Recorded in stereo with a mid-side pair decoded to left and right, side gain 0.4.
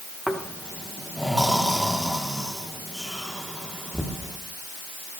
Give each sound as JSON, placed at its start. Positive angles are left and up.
{"t": 0.3, "sound": "snoring", "azimuth_deg": -5, "distance_m": 2.5}